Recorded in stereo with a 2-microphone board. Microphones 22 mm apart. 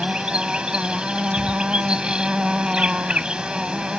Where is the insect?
50° right (ahead or behind).